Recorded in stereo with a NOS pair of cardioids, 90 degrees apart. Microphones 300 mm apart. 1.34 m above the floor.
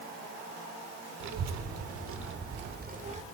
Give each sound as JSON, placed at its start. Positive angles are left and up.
{"t": 1.2, "sound": "a child speaking", "azimuth_deg": -65, "distance_m": 3.0}